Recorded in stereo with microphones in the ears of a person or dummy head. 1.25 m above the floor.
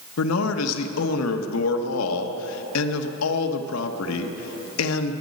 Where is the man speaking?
85° left, 1.1 m.